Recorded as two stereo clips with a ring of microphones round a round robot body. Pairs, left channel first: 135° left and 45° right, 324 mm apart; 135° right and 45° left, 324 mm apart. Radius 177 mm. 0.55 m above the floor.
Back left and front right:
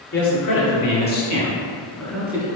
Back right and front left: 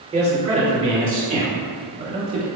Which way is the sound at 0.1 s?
115° left.